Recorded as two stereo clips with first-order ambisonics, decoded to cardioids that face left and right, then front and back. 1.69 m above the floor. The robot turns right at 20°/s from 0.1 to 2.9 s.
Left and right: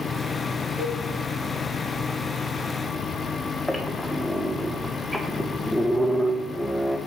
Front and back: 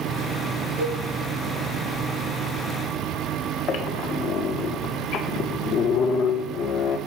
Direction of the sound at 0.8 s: 160° right.